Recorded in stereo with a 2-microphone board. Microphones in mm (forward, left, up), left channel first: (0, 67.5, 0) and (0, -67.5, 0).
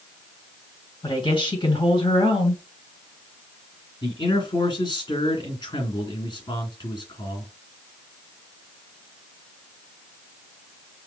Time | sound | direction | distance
1.0 | a woman speaking | 45° left (ahead or behind) | 2.0 m
4.0 | a man speaking | 35° left (ahead or behind) | 2.5 m